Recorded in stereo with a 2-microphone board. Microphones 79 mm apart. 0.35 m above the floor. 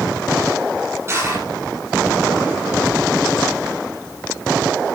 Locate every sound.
1.1 s crushing: 30° right (ahead or behind), 7 m